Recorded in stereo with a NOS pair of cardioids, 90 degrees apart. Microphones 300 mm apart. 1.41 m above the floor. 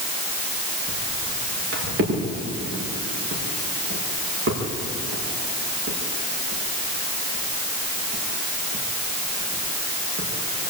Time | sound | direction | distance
0.9 | footsteps | 50° right | 8 m